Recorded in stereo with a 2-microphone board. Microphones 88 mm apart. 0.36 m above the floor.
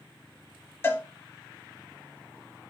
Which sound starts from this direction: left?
A cowbell, at 0.8 s.